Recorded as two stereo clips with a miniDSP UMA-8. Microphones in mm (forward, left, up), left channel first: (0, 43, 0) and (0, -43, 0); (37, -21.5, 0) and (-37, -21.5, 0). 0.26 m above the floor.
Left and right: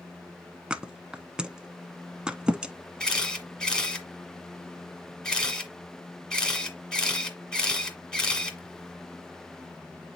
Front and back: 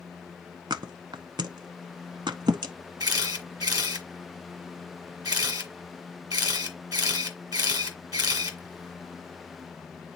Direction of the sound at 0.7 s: 170° right.